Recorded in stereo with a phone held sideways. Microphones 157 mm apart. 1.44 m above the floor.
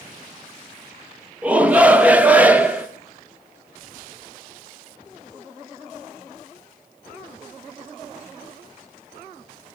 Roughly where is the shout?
Centre.